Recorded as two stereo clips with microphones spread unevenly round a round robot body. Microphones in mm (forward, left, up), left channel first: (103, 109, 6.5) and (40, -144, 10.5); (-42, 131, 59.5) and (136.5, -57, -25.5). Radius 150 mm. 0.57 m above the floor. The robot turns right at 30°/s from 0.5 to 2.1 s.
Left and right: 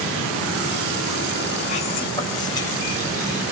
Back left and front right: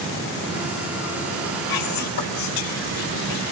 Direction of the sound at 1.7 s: 140° left.